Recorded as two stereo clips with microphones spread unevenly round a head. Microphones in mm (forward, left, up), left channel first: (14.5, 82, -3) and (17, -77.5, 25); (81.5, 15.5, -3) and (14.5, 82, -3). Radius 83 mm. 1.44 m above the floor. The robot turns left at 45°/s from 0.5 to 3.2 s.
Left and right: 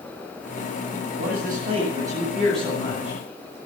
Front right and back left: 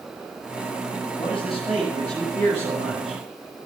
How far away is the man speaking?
About 8.5 m.